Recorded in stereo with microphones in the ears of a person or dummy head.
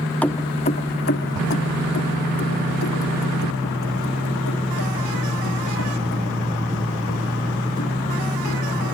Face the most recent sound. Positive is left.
turn(degrees=80)